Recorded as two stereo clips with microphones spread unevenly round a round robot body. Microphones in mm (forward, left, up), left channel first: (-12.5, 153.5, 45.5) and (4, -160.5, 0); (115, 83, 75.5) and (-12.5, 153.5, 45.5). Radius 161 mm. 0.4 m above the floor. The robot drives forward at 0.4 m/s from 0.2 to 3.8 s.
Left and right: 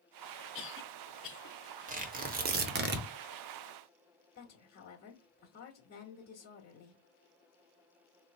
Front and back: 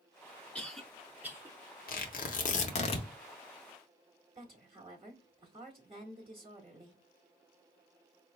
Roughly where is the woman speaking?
Behind left.